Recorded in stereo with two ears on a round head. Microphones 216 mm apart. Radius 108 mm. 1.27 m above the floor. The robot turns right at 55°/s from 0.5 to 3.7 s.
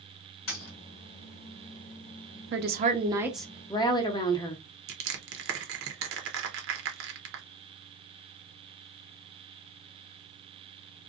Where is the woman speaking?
50° right, 0.6 m; by 4.6 s 15° left, 0.6 m.